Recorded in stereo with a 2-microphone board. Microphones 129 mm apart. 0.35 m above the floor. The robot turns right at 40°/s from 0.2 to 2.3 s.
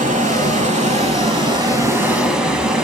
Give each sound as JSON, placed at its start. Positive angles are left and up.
{"t": 0.0, "sound": "running water", "azimuth_deg": -90, "distance_m": 0.9}